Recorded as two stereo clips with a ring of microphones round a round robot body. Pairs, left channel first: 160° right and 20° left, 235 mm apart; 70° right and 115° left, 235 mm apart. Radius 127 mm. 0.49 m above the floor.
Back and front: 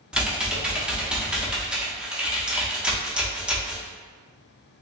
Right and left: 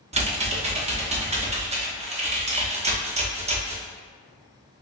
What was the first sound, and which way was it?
Typing on a keyboard, 105° left.